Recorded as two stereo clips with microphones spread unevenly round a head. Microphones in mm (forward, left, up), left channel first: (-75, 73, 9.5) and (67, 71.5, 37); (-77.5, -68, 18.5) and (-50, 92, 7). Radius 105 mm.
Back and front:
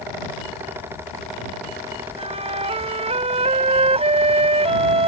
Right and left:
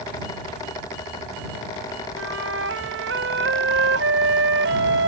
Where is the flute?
40° left.